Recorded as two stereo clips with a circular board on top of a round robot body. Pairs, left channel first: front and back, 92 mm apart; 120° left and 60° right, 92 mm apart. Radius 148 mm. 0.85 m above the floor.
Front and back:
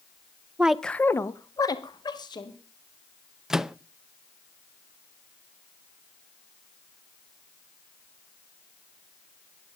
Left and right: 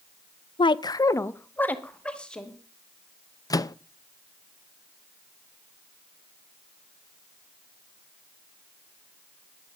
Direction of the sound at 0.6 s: 105° left.